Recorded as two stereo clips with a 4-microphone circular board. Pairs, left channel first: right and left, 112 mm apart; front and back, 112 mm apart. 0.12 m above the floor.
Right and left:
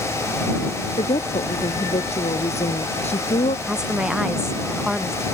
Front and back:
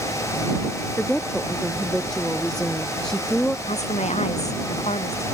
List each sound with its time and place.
1.0 s a woman speaking: 85° right
3.7 s a woman speaking: 5° left